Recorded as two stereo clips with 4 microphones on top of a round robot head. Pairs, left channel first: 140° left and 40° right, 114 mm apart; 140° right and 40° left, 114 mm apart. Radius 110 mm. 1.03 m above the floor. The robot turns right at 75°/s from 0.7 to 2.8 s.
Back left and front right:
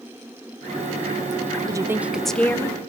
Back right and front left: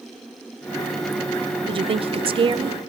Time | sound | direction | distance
1.7 | a woman speaking | 10° left | 0.5 m